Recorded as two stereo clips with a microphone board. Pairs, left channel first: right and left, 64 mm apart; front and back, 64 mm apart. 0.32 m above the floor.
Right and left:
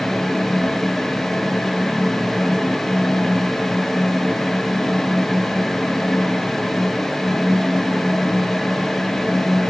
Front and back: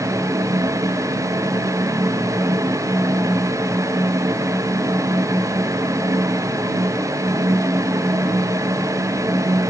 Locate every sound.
Only background noise.